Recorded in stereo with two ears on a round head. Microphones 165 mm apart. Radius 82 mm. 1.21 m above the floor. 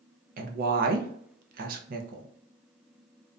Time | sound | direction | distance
0.4 | a woman speaking | 50° right (ahead or behind) | 0.5 m